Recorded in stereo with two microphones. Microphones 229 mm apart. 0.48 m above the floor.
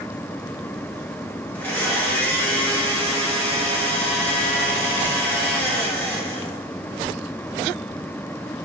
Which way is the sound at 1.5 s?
10° left (ahead or behind).